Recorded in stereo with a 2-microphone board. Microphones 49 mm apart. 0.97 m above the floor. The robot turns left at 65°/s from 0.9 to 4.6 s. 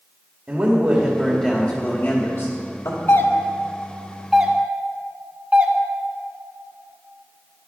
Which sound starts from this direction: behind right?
A man speaking, at 0.5 s.